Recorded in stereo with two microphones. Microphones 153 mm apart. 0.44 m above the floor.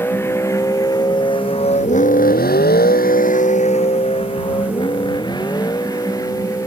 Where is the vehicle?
15° left (ahead or behind); by 6.7 s 20° left (ahead or behind).